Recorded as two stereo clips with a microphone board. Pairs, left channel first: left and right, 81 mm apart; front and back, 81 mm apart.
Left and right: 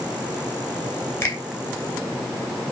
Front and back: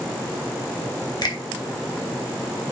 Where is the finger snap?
30° left, 2.5 m.